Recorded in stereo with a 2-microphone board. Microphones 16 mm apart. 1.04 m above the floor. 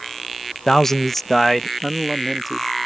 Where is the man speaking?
35° left (ahead or behind); by 2.7 s 10° right (ahead or behind).